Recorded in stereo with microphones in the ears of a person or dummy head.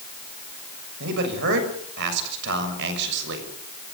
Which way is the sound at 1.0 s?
60° right (ahead or behind).